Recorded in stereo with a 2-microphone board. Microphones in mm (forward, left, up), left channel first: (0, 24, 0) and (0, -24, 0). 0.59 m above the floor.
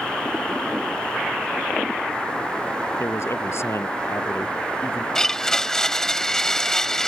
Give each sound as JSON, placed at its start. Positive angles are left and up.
{"t": 3.0, "sound": "a man speaking", "side_deg": 65}
{"t": 5.2, "sound": "a blender", "side_deg": 10}